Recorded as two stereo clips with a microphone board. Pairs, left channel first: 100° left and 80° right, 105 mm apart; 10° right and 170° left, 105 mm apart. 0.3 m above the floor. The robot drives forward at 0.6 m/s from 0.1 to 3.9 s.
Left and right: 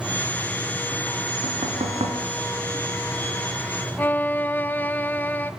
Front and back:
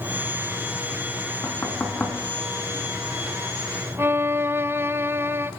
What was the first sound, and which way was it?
Knocking, 80° right.